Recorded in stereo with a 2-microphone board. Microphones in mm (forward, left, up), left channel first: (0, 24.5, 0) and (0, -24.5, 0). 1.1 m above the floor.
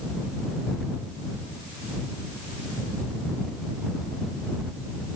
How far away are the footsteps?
No footsteps in this recording.